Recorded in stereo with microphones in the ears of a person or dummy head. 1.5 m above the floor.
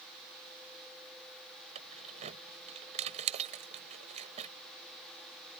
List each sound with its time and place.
1.8 s keys jangling: 35° right (ahead or behind)